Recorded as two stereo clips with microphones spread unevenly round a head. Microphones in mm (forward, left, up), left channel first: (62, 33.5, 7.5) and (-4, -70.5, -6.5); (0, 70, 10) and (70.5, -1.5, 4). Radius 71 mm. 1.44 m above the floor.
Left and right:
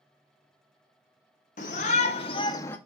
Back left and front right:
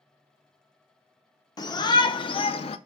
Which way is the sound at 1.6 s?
85° left.